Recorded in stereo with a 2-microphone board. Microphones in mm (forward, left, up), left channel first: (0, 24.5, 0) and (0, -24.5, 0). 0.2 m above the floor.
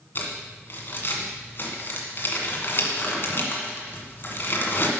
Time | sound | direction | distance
0.1 | crumpling | 45° left (ahead or behind) | 1.5 m